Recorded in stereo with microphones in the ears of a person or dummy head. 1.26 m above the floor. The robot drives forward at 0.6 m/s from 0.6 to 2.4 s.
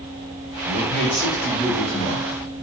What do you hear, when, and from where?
0.7 s a man speaking: 70° left (ahead or behind), 0.8 m; by 2.5 s 30° left (ahead or behind), 1.5 m